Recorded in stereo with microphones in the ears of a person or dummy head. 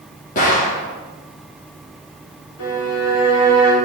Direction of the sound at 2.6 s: 75° left (ahead or behind).